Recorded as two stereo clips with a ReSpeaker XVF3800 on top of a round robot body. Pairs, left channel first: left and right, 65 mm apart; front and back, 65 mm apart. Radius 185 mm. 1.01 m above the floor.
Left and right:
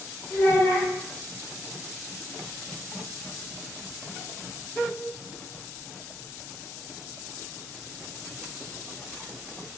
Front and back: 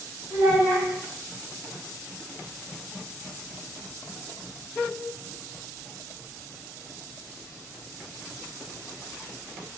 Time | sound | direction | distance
0.3 | a child speaking | 100° left | 2 m